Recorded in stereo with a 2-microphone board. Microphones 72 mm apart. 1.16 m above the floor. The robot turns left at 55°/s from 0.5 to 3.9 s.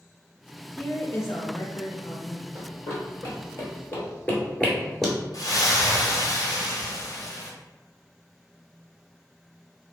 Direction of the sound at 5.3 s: 55° left (ahead or behind).